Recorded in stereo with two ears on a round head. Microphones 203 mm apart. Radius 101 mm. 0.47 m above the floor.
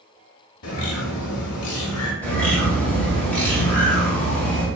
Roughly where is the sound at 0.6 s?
Left.